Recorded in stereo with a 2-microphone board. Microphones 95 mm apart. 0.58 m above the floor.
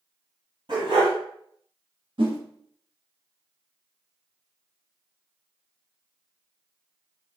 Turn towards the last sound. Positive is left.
turn(degrees=-55)  # may be behind; listen again after turning